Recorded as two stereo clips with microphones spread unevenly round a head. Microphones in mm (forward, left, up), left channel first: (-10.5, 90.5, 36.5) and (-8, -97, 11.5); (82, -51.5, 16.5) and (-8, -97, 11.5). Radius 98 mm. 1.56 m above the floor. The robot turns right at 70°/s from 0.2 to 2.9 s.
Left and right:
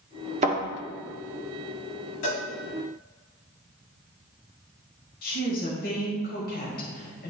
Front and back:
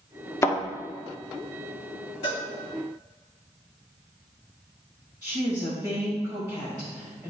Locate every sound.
0.4 s a thud: 30° right, 1.6 m; by 0.6 s 20° right, 1.6 m
2.2 s a cowbell: 80° left, 2.5 m; by 2.4 s 95° left, 2.5 m
5.2 s a woman speaking: 130° left, 1.8 m